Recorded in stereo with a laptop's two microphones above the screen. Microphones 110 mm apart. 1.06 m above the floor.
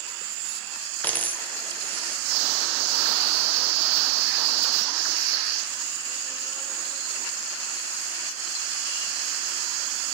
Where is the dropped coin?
15° left (ahead or behind), 1.3 m.